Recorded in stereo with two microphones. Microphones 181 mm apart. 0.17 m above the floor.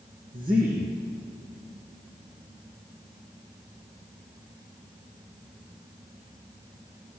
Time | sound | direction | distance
0.3 | a man speaking | 55° right (ahead or behind) | 4.5 m